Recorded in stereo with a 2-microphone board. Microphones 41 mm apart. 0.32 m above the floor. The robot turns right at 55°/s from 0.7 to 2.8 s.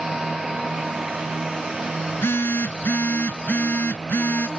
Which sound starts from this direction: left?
A phone buzzing, at 2.1 s.